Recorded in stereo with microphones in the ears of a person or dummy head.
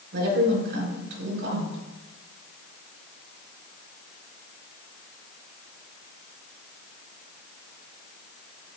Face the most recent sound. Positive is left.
turn(degrees=-65)  # may be behind; listen again after turning